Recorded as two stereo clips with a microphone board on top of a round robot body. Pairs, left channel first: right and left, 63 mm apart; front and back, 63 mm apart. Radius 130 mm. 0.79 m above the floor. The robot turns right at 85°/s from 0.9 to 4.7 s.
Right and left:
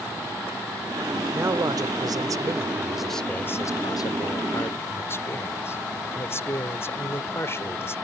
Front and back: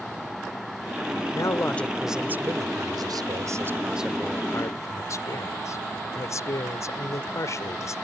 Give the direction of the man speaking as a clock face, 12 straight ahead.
11 o'clock.